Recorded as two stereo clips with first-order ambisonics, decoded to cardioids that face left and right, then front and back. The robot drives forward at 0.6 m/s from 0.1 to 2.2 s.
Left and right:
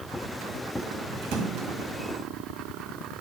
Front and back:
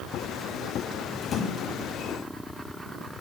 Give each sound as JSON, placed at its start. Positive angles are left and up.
{"t": 1.2, "sound": "a splash", "azimuth_deg": -70, "distance_m": 1.8}